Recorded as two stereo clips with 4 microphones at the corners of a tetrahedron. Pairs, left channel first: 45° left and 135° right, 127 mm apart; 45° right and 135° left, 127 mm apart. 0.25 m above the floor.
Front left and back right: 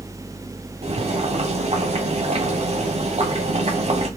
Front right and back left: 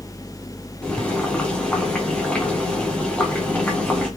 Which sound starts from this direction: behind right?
Boiling, at 0.8 s.